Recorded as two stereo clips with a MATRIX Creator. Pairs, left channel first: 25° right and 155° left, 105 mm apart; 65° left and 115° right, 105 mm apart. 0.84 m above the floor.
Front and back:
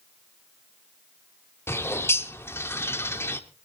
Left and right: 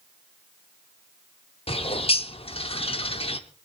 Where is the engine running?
I don't hear an engine running.